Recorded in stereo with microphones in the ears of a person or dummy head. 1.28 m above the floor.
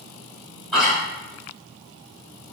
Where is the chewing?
Centre (ahead or behind), 1.4 m.